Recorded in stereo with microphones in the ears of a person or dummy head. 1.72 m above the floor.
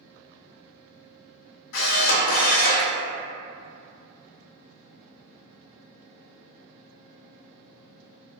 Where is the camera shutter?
70° left (ahead or behind), 0.8 m.